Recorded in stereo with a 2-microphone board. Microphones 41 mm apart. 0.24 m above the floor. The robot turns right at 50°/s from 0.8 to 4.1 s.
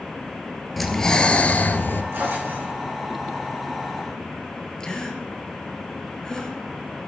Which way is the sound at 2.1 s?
85° right.